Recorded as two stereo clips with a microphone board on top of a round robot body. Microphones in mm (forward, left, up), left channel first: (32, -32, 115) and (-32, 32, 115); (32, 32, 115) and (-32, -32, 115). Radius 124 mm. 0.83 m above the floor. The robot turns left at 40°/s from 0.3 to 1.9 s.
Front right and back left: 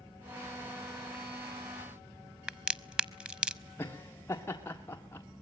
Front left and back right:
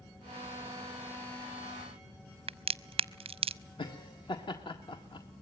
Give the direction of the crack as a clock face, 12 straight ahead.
5 o'clock.